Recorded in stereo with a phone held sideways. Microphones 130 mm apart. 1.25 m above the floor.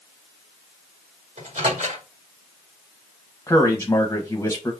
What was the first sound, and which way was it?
A microwave, 70° right (ahead or behind).